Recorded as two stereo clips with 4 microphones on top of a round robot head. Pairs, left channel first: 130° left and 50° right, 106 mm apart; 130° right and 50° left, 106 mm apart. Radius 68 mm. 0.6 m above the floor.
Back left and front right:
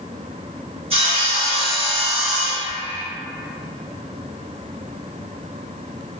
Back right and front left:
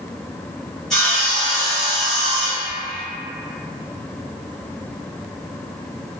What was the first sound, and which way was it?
Sawing, 45° right.